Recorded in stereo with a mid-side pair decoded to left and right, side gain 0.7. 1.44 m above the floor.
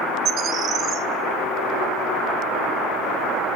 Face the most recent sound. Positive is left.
turn(degrees=-45)